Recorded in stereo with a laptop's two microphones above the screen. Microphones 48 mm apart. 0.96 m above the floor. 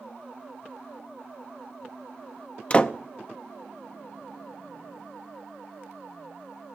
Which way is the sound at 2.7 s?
25° left (ahead or behind).